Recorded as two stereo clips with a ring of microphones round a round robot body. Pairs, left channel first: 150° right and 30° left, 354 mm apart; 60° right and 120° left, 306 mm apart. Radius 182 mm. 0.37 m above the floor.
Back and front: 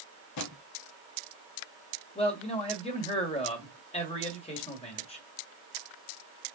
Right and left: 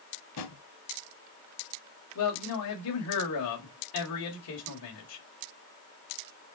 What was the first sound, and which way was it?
A drawer, 105° right.